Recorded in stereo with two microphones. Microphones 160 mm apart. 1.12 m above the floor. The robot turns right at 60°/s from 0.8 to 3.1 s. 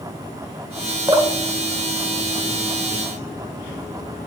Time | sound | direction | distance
1.1 | dripping | 25° right (ahead or behind) | 0.8 m